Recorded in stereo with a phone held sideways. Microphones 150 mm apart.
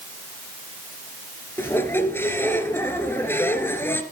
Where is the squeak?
15° left (ahead or behind), 1.6 m.